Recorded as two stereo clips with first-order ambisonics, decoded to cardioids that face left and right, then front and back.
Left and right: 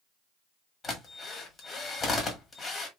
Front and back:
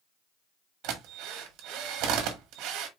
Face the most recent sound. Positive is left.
turn(degrees=160)